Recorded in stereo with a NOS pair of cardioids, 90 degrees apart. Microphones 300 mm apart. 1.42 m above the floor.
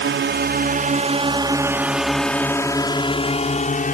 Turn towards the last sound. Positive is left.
turn(degrees=30)